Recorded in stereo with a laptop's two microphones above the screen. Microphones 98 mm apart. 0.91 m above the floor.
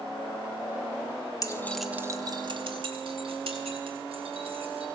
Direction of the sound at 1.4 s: 40° left (ahead or behind).